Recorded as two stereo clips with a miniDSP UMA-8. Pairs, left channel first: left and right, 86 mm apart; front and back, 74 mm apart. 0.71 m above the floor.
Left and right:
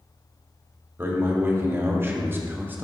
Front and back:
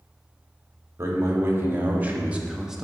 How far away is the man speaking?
About 1.6 m.